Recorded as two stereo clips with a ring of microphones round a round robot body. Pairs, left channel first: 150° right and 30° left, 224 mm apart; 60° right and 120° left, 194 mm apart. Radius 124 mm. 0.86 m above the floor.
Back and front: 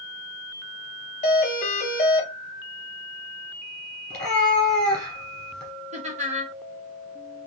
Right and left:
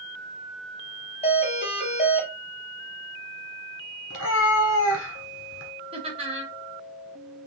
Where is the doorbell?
105° right, 0.9 m.